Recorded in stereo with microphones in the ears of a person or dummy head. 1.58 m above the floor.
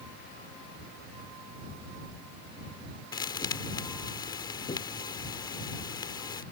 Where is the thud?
30° left (ahead or behind).